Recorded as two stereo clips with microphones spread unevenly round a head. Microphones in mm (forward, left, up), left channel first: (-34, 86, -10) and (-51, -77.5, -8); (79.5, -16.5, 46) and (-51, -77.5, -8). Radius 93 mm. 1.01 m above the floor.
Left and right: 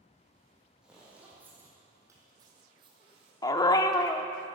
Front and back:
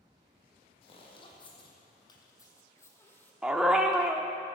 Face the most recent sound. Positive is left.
turn(degrees=60)